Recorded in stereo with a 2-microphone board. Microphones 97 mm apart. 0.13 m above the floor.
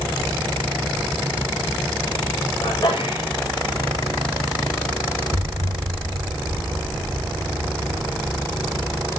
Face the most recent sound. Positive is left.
turn(degrees=-75)  # may be behind; listen again after turning